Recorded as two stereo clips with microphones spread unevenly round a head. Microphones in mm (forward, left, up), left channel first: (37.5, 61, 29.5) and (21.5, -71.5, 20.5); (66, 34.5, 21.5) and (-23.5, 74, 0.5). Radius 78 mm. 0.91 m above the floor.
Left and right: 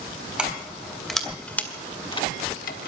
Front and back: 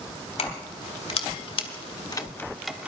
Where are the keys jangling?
15° right, 3.5 m; by 2.9 s 75° left, 1.3 m.